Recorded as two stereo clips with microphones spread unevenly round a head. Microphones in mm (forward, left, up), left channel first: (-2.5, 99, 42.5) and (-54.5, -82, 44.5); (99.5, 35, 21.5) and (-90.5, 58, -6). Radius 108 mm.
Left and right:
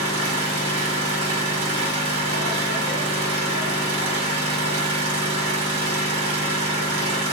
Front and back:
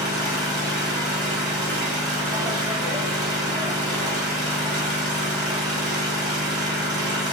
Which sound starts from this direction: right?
An engine running, at 0.0 s.